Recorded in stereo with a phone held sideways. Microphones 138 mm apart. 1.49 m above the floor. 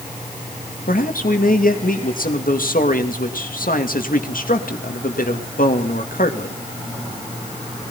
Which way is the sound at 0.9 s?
85° left.